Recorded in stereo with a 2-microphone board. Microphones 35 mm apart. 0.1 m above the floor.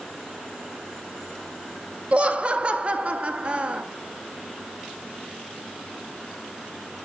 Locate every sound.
2.1 s laughter: 30° right (ahead or behind), 1.4 m